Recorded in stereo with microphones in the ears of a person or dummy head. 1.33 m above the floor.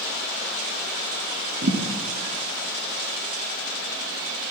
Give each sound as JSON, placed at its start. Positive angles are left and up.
{"t": 1.6, "sound": "a thud", "side_deg": -50, "distance_m": 3.0}